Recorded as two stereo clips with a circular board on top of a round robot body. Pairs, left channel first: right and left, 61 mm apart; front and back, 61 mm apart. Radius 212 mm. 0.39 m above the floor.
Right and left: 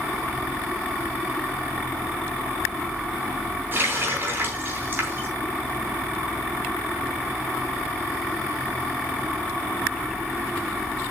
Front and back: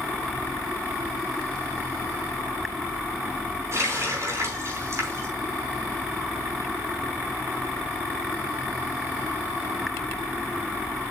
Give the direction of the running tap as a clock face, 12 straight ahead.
7 o'clock.